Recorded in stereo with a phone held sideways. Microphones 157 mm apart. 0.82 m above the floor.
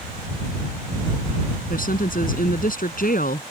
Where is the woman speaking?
65° left (ahead or behind).